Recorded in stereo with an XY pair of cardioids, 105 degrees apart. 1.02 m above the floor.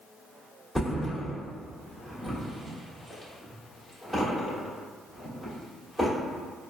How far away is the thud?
About 1.5 m.